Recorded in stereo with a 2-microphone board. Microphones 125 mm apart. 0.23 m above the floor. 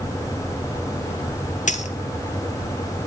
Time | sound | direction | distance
1.7 | a dropped coin | 80° left | 1.7 m